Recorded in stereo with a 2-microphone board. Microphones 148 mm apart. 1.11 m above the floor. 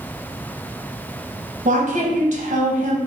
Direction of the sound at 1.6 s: 55° right (ahead or behind).